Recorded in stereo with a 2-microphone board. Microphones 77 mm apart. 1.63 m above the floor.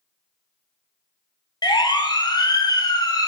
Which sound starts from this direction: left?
A siren, at 1.6 s.